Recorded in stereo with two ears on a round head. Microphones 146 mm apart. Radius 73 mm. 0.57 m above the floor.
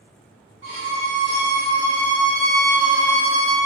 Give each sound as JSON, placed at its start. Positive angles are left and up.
{"t": 0.6, "sound": "a violin", "side_deg": -40, "distance_m": 1.6}